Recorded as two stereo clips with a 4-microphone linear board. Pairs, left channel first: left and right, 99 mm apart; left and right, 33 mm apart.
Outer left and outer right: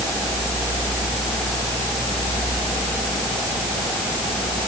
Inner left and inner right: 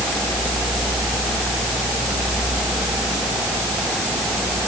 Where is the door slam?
I don't hear a door slam.